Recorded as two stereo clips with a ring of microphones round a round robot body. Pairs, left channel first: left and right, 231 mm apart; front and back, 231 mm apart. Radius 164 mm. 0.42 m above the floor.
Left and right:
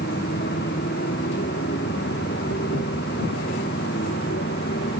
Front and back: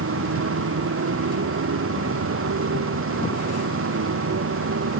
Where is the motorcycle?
155° left.